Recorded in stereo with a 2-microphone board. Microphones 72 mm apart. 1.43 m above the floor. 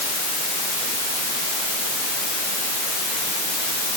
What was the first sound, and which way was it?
Only background noise.